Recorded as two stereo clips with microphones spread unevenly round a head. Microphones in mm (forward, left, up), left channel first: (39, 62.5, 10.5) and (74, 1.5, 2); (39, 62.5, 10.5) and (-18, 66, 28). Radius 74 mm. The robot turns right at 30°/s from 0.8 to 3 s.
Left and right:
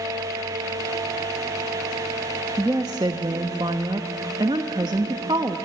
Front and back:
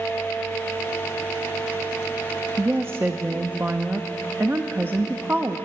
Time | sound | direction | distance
2.6 | a woman speaking | 120° right | 0.8 m